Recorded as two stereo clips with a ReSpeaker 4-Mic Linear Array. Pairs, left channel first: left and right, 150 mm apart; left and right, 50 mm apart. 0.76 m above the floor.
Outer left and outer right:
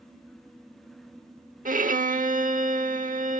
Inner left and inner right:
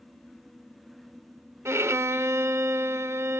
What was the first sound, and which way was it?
A violin, 65° right (ahead or behind).